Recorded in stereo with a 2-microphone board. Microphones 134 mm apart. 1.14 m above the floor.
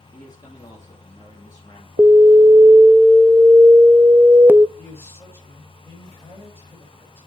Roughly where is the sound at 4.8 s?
Centre.